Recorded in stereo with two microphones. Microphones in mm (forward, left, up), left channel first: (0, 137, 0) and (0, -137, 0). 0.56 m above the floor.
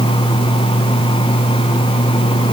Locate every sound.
Only background noise.